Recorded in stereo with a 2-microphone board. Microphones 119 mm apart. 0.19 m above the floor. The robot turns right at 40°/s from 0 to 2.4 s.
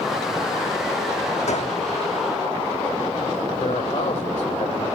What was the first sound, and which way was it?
A gunshot, 70° left (ahead or behind).